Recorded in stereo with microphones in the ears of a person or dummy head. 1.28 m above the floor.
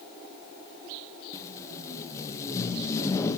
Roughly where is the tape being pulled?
Left.